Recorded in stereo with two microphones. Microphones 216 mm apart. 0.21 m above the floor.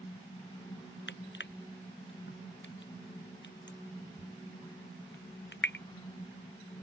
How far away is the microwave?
I don't hear a microwave.